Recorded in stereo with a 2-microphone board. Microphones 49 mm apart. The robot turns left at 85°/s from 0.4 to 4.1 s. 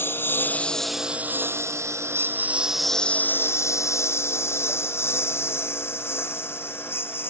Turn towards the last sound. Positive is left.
turn(degrees=55)  # may be behind; listen again after turning